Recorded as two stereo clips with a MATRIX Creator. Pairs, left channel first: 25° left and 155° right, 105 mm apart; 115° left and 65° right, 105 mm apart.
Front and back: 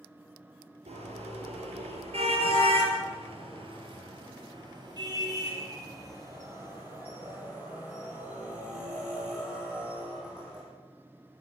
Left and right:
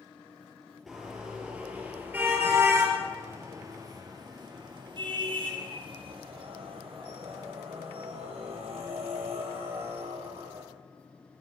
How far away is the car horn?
About 4 m.